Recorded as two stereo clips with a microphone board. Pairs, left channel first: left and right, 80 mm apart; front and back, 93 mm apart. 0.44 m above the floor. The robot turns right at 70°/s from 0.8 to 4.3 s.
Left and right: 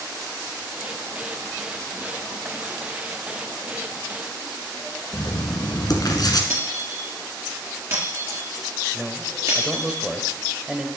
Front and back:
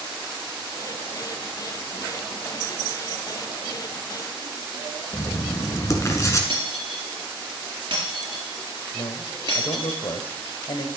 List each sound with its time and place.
5.1 s writing: 55° left, 1.9 m
6.5 s breaking glass: 140° right, 3.5 m
8.9 s a man speaking: 10° right, 1.6 m